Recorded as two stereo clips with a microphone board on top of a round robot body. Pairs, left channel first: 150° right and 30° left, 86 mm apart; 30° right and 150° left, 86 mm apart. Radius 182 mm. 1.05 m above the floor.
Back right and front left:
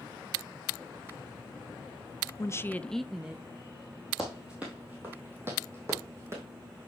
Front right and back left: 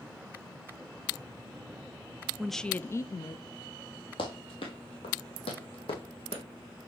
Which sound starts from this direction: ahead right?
Running footsteps, at 4.2 s.